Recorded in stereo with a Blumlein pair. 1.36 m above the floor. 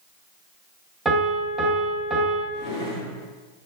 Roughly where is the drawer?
Ahead left.